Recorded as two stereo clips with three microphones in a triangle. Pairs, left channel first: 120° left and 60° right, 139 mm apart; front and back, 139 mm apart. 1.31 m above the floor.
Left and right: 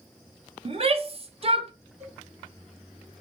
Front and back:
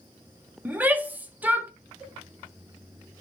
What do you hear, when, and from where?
0.7 s a shout: 100° right, 0.6 m
2.0 s a cowbell: 100° right, 1.8 m